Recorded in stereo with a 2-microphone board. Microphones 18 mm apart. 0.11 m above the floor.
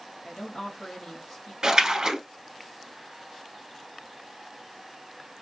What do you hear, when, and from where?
0.2 s a woman speaking: 40° left (ahead or behind), 1.4 m
1.6 s a splash: 40° right (ahead or behind), 0.8 m